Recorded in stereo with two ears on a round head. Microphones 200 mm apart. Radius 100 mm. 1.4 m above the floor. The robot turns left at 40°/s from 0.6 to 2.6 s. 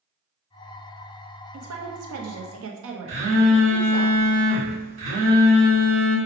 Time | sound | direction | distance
1.5 | a woman speaking | 70° right | 0.8 m
3.1 | a phone buzzing | 60° right (ahead or behind) | 1.7 m